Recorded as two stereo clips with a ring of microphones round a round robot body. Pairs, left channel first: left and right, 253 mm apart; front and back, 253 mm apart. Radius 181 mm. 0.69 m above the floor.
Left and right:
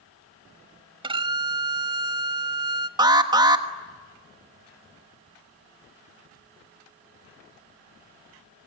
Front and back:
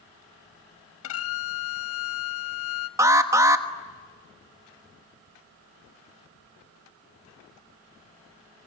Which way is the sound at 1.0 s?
25° right.